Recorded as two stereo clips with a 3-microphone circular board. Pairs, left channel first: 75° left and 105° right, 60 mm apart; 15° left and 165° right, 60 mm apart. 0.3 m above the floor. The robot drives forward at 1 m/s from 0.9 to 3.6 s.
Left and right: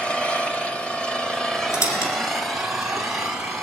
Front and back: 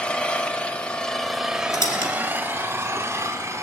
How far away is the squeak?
About 2.5 m.